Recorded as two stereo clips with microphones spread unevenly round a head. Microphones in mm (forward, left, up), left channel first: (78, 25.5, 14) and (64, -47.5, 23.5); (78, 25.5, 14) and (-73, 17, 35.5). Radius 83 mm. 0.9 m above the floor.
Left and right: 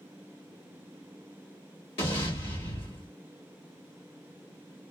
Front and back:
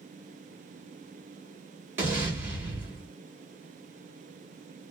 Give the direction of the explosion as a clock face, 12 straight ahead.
8 o'clock.